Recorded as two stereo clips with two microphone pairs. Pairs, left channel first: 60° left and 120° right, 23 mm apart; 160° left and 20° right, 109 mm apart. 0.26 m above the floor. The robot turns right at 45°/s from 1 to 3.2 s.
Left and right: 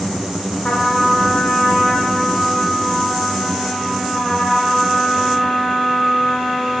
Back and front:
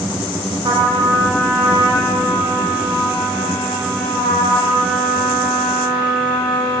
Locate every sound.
0.6 s a trumpet: 30° left, 2 m; by 6.8 s 130° left, 2 m